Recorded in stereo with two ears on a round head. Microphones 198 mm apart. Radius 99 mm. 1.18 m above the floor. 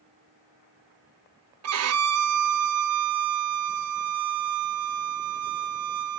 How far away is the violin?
About 0.7 m.